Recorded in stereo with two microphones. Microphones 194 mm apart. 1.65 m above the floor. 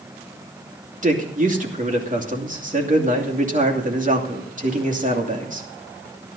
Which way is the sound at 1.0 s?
40° right (ahead or behind).